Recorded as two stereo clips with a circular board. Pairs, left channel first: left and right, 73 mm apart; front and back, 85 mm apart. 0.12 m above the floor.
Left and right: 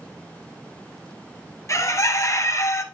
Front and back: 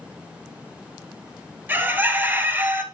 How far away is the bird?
About 0.9 m.